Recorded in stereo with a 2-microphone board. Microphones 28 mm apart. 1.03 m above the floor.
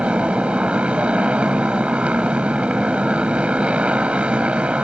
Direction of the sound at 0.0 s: 55° right (ahead or behind).